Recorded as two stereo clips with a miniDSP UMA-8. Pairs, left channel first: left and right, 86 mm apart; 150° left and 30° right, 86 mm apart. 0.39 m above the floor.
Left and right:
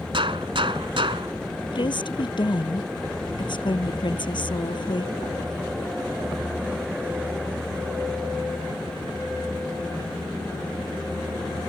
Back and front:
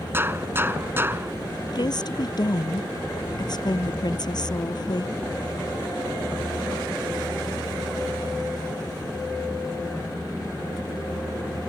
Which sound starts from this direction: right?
A gunshot, at 0.1 s.